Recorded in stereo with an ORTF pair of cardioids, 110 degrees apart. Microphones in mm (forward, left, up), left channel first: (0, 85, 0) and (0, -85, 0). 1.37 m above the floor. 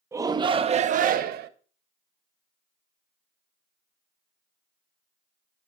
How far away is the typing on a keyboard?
I don't hear typing on a keyboard.